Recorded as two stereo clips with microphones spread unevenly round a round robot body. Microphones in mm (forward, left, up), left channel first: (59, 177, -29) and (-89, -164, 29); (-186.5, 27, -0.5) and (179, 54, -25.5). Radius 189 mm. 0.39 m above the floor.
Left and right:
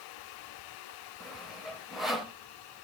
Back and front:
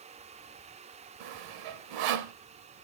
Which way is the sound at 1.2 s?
20° right.